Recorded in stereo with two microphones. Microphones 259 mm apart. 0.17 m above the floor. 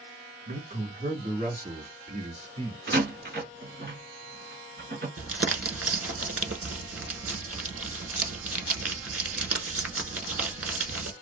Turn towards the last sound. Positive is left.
turn(degrees=-60)  # may be behind; listen again after turning